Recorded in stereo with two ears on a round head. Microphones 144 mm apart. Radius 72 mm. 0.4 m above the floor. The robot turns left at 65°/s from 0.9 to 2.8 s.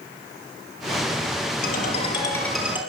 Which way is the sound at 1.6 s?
60° left.